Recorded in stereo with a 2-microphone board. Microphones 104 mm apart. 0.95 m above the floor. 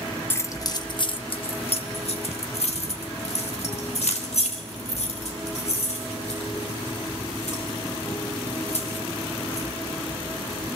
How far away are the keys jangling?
About 0.9 m.